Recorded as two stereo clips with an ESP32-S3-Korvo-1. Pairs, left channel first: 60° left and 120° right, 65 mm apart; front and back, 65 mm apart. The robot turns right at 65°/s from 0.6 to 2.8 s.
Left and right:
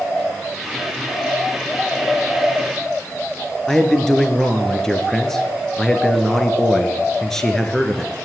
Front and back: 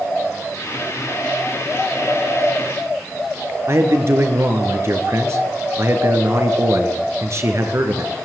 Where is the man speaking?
145° left, 3 m.